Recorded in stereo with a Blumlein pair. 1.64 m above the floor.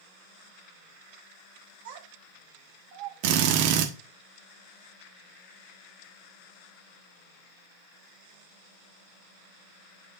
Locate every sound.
1.9 s a child speaking: 55° right, 1.6 m; by 3.7 s 45° right, 3 m
3.2 s a drill: 45° right, 1.2 m